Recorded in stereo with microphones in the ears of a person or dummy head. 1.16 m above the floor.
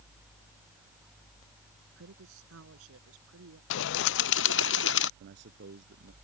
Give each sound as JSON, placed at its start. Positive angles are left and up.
{"t": 2.0, "sound": "a woman speaking", "side_deg": -75}
{"t": 3.7, "sound": "a bird", "side_deg": 70}
{"t": 5.2, "sound": "a man speaking", "side_deg": -55}